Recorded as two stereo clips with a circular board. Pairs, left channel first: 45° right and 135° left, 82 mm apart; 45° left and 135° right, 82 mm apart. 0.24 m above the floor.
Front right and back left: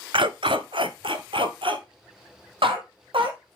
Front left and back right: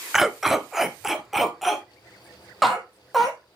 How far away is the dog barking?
About 0.6 m.